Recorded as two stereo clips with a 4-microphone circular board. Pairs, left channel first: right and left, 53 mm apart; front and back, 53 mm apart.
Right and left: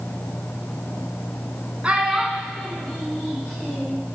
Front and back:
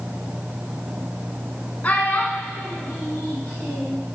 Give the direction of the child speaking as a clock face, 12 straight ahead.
11 o'clock.